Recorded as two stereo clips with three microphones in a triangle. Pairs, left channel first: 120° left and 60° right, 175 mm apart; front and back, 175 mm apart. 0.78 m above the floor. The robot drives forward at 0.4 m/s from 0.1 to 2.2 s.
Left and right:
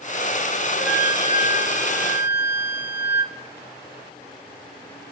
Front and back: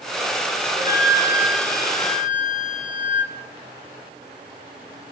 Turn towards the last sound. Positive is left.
turn(degrees=115)